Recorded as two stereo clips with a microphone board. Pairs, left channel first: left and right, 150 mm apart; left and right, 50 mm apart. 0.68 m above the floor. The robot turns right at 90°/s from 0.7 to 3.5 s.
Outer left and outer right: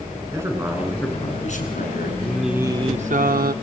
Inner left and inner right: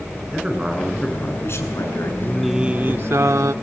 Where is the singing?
160° left, 0.7 m; by 3.5 s 85° right, 0.7 m.